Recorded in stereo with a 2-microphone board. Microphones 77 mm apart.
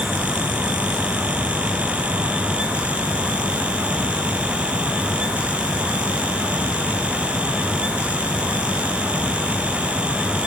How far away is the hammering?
I don't hear hammering.